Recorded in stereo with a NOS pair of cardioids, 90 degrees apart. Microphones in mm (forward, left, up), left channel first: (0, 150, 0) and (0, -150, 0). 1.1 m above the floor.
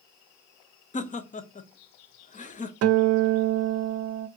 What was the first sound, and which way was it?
Laughter, 25° left.